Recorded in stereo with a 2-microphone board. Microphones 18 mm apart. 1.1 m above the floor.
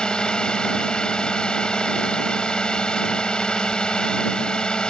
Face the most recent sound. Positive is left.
turn(degrees=55)  # may be behind; listen again after turning